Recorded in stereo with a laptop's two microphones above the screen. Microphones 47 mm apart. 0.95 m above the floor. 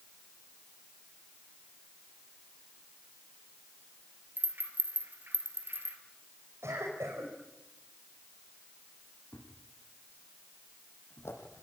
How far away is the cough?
About 5.5 m.